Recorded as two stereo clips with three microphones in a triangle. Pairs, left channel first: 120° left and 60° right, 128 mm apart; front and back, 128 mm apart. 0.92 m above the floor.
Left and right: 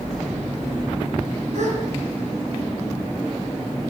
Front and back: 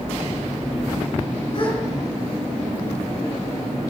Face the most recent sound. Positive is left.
turn(degrees=-45)